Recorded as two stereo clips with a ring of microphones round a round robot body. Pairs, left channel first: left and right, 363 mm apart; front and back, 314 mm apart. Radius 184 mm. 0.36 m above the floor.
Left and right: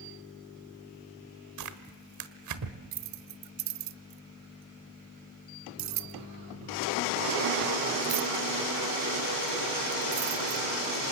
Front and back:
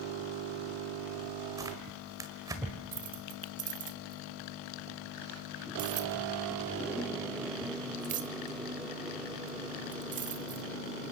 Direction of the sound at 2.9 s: 120° right.